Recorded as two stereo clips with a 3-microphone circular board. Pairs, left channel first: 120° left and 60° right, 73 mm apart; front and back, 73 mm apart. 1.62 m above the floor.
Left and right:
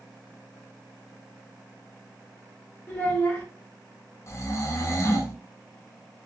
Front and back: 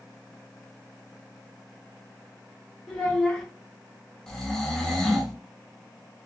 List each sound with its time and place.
2.9 s a child speaking: 70° left, 0.9 m
4.3 s snoring: 80° left, 0.6 m